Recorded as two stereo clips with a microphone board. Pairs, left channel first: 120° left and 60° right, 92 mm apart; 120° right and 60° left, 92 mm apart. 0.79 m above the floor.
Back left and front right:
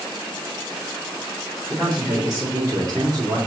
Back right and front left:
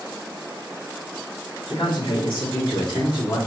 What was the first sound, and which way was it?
A man speaking, 130° right.